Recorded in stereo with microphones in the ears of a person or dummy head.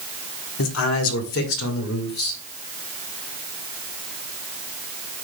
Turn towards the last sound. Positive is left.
turn(degrees=75)  # may be behind; listen again after turning